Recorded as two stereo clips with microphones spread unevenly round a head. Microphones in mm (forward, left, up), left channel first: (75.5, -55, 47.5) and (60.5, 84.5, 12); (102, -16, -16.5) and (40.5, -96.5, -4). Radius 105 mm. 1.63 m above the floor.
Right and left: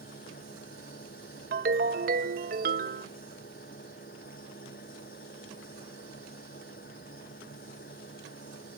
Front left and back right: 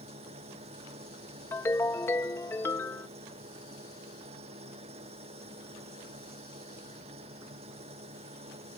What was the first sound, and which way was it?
An engine running, 130° right.